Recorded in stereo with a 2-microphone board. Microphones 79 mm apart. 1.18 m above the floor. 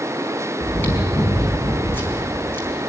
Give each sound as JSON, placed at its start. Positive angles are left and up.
{"t": 0.6, "sound": "chewing", "side_deg": 25, "distance_m": 4.5}